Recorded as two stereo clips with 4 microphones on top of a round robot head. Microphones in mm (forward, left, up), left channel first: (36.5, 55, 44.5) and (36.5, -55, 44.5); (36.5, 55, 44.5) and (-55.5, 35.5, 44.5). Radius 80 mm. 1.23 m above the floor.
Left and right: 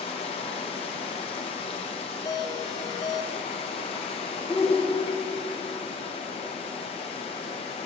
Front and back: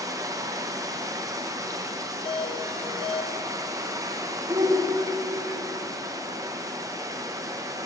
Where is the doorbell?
40° left, 1.0 m.